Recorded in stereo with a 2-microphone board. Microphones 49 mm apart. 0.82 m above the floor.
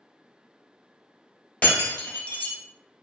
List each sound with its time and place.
1.6 s breaking glass: 40° left (ahead or behind), 1.2 m